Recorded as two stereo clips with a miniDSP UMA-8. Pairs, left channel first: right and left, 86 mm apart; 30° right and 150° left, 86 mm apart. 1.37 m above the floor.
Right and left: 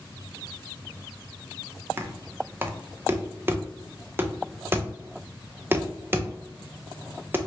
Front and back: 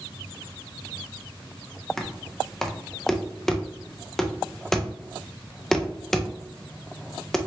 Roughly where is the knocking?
Ahead left.